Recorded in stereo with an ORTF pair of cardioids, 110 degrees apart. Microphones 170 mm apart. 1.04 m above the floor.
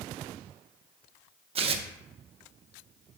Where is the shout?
No shout in this recording.